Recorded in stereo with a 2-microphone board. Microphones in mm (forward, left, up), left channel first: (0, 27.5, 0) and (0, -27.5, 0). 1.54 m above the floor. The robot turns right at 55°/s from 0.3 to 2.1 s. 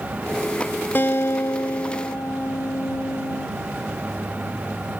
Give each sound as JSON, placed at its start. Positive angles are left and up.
{"t": 0.9, "sound": "a guitar", "azimuth_deg": 45}